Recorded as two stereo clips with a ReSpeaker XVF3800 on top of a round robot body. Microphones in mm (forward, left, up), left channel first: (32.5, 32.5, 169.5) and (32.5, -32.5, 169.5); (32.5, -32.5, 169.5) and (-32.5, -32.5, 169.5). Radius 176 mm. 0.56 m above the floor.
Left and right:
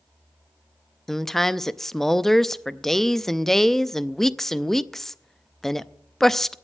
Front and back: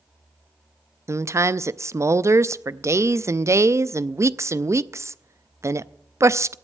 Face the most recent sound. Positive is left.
turn(degrees=170)